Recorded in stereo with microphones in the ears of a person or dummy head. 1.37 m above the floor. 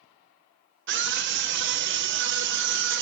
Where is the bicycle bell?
No bicycle bell in this recording.